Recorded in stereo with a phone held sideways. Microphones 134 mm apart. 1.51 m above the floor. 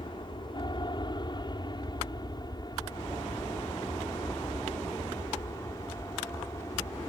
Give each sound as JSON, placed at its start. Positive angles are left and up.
{"t": 0.0, "sound": "an aircraft", "side_deg": 35}